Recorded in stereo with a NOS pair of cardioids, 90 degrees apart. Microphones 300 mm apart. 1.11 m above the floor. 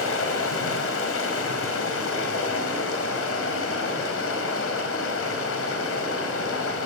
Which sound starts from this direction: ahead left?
Running water, at 0.0 s.